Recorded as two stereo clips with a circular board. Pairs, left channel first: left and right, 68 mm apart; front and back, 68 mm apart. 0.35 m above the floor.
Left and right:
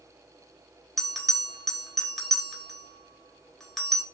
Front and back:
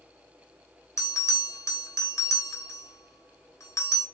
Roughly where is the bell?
Ahead.